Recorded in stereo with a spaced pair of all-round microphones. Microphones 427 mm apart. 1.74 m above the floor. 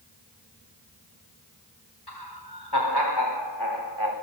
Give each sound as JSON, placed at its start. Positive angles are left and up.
{"t": 2.1, "sound": "laughter", "side_deg": 65, "distance_m": 6.0}